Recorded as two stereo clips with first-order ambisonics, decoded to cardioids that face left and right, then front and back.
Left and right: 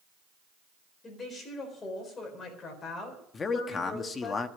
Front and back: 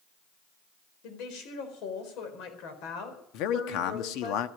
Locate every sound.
1.0 s a woman speaking: 20° left, 4 m
3.3 s a man speaking: 20° left, 1.1 m